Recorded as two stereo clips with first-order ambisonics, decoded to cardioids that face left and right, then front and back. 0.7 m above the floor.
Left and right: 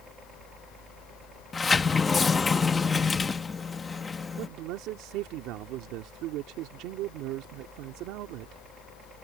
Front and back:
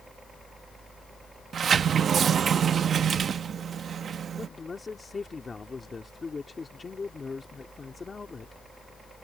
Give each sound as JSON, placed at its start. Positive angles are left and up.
{"t": 0.0, "sound": "a helicopter", "azimuth_deg": -120}
{"t": 1.5, "sound": "a sliding door", "azimuth_deg": 145}
{"t": 4.4, "sound": "a man speaking", "azimuth_deg": -70}